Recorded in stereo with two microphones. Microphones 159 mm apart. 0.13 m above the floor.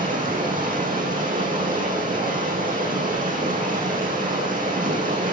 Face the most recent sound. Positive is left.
turn(degrees=-60)  # may be behind; listen again after turning